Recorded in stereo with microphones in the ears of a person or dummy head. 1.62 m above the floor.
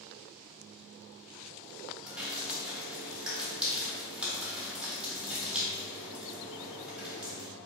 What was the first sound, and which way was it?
Dripping, 5° right (ahead or behind).